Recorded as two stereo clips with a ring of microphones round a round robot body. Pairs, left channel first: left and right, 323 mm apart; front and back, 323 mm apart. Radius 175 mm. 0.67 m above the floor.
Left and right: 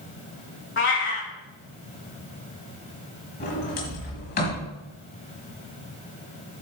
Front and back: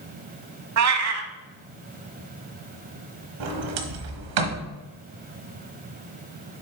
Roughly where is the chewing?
I don't hear chewing.